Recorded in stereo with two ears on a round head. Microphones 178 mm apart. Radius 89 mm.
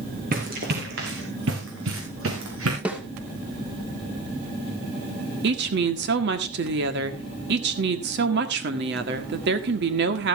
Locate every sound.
0.3 s running footsteps: 45° right (ahead or behind), 3.5 m; by 2.8 s 80° right, 4.5 m
2.9 s a snare drum: 5° right (ahead or behind), 2.0 m
5.4 s a woman speaking: 60° right (ahead or behind), 1.7 m